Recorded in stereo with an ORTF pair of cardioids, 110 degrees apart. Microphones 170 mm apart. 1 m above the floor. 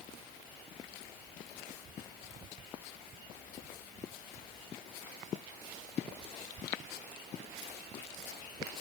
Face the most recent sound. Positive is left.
No sound to turn to.